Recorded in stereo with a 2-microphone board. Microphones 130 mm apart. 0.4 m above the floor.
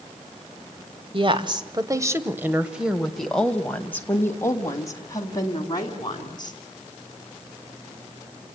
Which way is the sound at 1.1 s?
40° right (ahead or behind).